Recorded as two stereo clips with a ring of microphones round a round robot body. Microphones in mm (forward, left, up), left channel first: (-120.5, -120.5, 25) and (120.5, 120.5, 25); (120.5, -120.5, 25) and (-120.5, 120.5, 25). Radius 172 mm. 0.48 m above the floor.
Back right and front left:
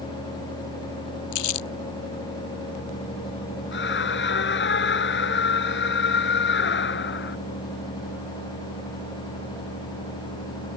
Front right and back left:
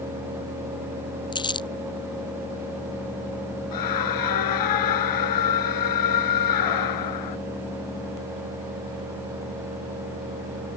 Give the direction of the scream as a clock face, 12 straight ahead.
3 o'clock.